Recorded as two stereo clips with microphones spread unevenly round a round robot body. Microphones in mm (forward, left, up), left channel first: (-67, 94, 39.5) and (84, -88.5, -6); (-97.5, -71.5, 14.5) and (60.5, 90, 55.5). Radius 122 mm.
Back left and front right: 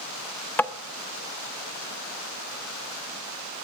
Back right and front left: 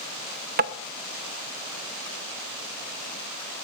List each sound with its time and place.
0.6 s tapping: 35° left, 0.7 m